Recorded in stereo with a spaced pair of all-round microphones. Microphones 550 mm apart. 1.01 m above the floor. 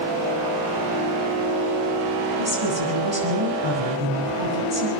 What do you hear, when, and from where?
2.4 s a woman speaking: 50° right (ahead or behind), 9 m